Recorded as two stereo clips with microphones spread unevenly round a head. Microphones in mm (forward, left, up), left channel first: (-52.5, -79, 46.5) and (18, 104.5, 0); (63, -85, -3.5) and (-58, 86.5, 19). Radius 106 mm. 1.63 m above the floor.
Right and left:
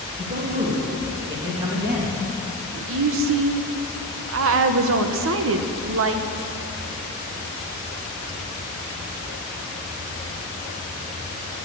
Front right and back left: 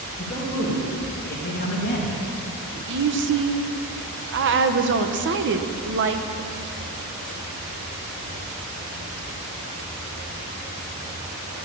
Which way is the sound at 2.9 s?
95° left.